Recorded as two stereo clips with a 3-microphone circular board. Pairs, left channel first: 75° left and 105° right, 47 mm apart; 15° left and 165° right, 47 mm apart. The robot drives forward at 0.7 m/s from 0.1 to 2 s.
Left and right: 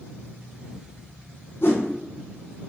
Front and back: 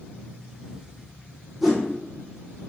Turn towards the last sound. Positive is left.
turn(degrees=120)